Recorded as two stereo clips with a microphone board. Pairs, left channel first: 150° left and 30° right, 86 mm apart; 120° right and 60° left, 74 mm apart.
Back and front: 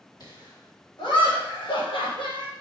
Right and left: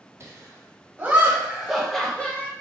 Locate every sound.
0.2 s laughter: 115° left, 2.0 m; by 2.5 s 175° left, 1.2 m